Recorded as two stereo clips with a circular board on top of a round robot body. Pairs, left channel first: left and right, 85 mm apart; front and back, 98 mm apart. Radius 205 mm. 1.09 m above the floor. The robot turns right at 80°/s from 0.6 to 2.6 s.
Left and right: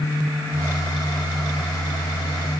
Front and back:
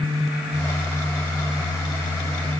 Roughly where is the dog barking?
I don't hear a dog barking.